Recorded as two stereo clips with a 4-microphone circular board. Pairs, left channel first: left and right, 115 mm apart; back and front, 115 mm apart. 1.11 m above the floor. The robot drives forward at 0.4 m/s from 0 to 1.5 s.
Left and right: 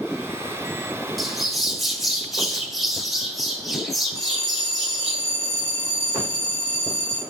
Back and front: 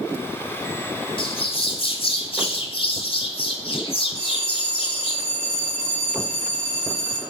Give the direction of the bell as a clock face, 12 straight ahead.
11 o'clock.